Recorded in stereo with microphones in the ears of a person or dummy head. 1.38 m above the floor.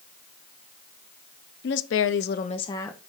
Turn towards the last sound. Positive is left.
turn(degrees=5)  # may be behind; listen again after turning